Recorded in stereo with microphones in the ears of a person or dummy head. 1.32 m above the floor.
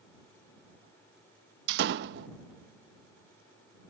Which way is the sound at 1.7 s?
65° right (ahead or behind).